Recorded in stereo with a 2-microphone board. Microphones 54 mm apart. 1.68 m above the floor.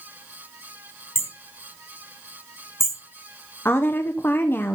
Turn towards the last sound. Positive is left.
turn(degrees=45)  # may be behind; listen again after turning